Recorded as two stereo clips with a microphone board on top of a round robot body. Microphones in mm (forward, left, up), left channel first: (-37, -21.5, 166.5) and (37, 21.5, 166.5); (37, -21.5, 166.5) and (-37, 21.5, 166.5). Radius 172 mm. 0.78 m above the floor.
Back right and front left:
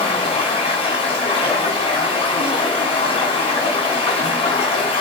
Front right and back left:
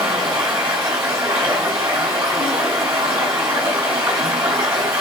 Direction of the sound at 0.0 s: 150° right.